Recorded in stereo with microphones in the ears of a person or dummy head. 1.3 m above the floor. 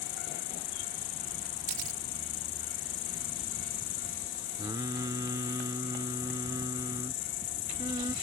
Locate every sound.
0.0 s an insect: 40° left (ahead or behind)
1.7 s a camera shutter: 40° right (ahead or behind)
4.6 s singing: 20° right (ahead or behind)